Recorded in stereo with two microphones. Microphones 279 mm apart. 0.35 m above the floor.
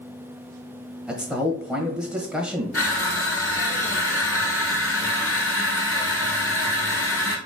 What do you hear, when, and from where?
1.1 s a man speaking: 5° right (ahead or behind), 1.4 m
2.7 s crushing: 55° left (ahead or behind), 1.2 m